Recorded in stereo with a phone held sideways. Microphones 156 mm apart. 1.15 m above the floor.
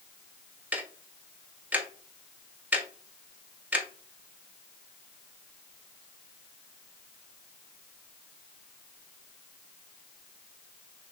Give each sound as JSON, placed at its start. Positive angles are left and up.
{"t": 0.7, "sound": "ticking", "side_deg": -10, "distance_m": 0.5}